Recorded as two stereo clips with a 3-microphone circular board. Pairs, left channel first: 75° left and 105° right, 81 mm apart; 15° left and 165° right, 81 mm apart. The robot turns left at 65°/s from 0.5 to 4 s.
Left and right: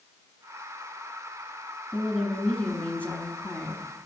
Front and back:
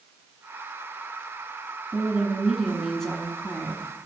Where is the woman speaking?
160° left, 1.1 m; by 4.0 s 30° left, 1.1 m.